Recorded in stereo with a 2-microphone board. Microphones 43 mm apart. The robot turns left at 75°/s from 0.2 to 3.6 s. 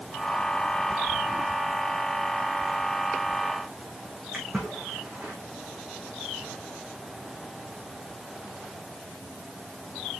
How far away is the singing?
No singing in this recording.